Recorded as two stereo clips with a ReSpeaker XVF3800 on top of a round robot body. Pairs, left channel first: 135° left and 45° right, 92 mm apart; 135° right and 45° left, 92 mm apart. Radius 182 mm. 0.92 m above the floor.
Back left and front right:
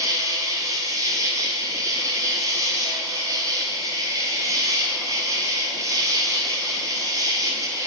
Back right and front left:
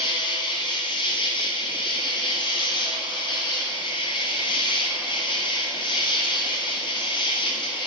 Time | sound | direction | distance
0.0 | an insect | 100° right | 1.0 m